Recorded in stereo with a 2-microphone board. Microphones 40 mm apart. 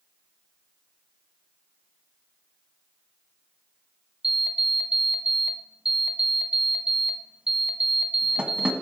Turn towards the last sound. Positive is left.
turn(degrees=-25)  # may be behind; listen again after turning